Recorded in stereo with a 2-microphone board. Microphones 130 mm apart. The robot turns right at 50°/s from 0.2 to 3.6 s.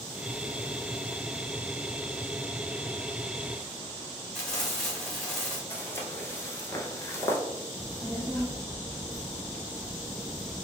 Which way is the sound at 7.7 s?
20° left (ahead or behind).